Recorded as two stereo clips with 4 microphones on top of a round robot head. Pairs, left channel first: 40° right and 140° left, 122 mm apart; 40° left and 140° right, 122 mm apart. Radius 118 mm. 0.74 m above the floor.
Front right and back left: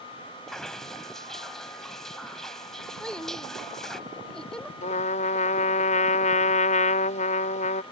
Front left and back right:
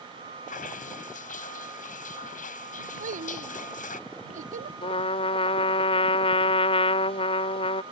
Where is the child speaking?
125° right.